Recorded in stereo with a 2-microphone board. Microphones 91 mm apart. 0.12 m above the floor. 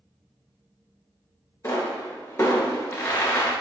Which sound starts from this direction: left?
A pop, at 1.6 s.